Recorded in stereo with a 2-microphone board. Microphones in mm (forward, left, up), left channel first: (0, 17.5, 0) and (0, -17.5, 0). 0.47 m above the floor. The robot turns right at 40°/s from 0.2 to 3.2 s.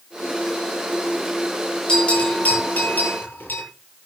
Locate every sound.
1.9 s a bell: 25° left (ahead or behind), 8.5 m; by 3.6 s 80° left, 8.5 m